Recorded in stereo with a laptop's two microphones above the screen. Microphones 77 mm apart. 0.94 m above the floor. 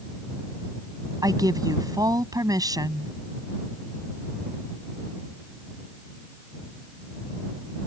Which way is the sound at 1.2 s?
50° right (ahead or behind).